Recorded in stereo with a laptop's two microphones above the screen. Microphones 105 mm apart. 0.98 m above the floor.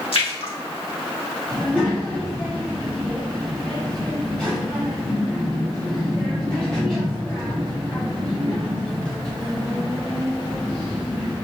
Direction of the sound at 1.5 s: 10° left (ahead or behind).